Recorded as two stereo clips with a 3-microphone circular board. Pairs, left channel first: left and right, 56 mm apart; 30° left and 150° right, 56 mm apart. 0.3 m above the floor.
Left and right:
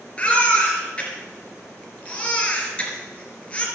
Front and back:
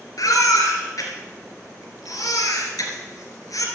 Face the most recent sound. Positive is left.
turn(degrees=20)